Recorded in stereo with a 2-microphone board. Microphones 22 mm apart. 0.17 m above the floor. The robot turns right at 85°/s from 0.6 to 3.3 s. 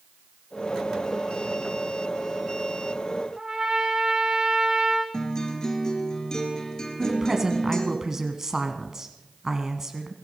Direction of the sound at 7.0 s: 25° right (ahead or behind).